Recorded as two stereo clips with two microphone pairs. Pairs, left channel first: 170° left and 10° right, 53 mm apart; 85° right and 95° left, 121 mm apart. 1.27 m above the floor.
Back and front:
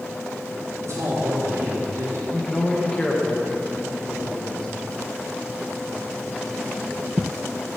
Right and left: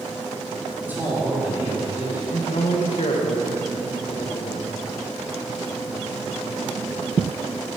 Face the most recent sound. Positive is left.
turn(degrees=-110)